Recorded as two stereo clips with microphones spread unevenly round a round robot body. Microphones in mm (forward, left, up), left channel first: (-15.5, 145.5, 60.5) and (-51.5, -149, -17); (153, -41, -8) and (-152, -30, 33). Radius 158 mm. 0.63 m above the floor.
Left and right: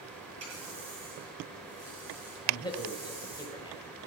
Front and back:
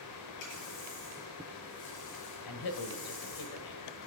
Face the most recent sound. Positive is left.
turn(degrees=5)